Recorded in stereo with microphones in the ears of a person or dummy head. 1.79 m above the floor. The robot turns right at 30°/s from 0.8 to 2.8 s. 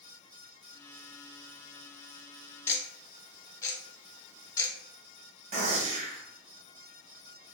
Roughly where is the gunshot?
Right.